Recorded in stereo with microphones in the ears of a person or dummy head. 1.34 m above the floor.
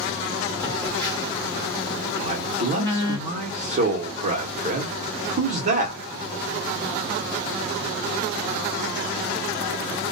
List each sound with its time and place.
0.6 s a phone buzzing: 20° left (ahead or behind), 1.0 m
2.2 s a man speaking: 40° right (ahead or behind), 0.9 m